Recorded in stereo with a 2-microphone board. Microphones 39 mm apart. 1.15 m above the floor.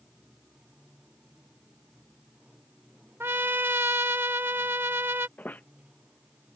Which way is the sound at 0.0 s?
20° right (ahead or behind).